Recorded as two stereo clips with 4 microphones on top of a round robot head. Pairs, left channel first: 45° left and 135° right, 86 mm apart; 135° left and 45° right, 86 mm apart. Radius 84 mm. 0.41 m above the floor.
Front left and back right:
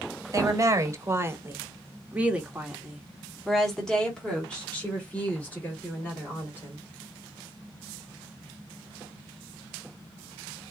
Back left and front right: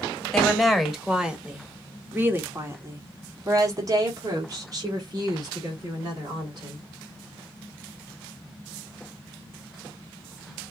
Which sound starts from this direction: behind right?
A woman speaking, at 0.3 s.